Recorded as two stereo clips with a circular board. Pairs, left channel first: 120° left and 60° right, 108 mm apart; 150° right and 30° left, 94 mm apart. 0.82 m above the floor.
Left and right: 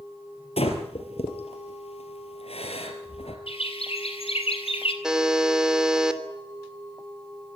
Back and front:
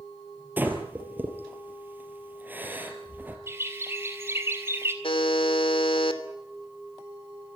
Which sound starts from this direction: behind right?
A buzzer, at 5.0 s.